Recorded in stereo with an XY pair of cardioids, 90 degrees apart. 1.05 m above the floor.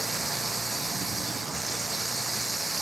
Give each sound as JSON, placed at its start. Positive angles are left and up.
{"t": 0.0, "sound": "running water", "azimuth_deg": -10}